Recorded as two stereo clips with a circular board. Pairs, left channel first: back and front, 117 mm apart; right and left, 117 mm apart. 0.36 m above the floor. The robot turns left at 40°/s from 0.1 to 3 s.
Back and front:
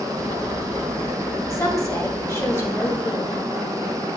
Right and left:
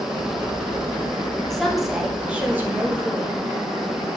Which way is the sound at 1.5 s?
170° right.